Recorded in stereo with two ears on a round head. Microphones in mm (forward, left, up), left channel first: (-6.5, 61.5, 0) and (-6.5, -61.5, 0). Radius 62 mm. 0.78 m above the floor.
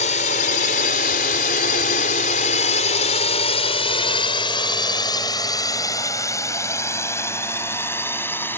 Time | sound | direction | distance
0.0 | a drone | 55° left (ahead or behind) | ?